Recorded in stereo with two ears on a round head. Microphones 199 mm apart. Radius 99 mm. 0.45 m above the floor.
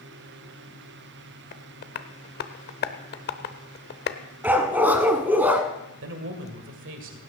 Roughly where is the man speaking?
Right.